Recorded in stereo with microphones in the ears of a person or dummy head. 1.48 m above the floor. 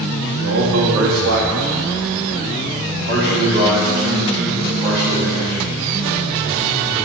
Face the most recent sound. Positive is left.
turn(degrees=-30)  # may be behind; listen again after turning